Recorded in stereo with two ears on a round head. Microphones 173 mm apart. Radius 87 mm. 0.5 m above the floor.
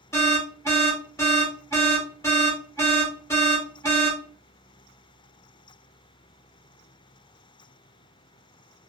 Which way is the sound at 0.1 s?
15° left (ahead or behind).